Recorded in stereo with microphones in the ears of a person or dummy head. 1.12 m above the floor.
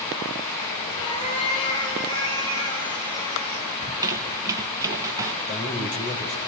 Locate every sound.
1.0 s a cat meowing: 25° left (ahead or behind), 6 m
3.8 s a squeak: 15° right (ahead or behind), 1.5 m
5.5 s a man speaking: 40° left (ahead or behind), 4.5 m